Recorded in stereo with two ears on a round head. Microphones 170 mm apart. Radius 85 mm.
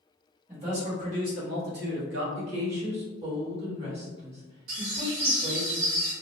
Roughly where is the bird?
Right.